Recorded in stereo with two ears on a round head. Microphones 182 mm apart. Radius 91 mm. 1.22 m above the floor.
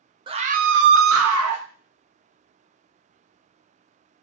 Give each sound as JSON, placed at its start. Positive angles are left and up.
{"t": 0.3, "sound": "a scream", "side_deg": -25, "distance_m": 0.5}